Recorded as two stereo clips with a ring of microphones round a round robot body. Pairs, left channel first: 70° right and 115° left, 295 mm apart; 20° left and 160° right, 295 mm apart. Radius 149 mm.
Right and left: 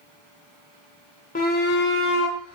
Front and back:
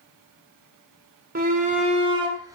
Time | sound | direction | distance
1.4 | a shout | 115° right | 1.9 m